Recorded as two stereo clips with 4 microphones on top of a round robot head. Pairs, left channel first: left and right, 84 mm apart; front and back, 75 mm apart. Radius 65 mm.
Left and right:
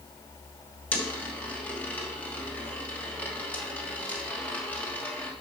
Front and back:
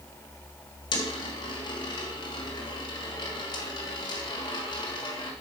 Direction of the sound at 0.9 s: 20° left.